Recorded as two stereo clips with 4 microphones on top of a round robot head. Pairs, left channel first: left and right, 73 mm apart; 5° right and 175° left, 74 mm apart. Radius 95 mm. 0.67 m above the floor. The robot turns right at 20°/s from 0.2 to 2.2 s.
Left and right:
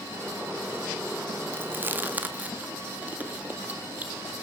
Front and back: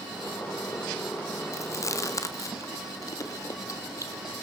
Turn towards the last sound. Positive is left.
turn(degrees=-25)